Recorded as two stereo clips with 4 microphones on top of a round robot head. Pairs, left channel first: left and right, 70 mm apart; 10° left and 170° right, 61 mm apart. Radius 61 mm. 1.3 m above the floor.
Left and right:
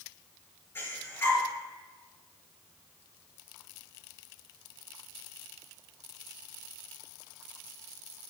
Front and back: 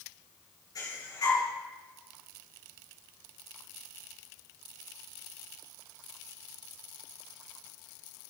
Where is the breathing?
35° left, 8.5 m.